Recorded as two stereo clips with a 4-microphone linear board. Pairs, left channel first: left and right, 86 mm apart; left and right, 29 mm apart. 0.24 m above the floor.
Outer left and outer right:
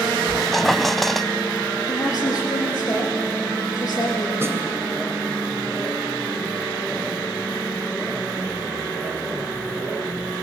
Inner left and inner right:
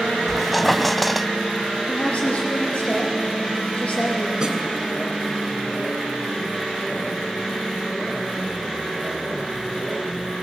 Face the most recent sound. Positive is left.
turn(degrees=-30)  # may be behind; listen again after turning